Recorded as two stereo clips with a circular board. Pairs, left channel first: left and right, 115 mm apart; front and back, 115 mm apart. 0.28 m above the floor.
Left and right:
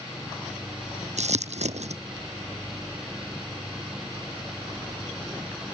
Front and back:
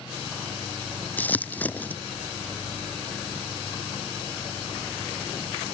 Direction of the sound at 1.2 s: 75° right.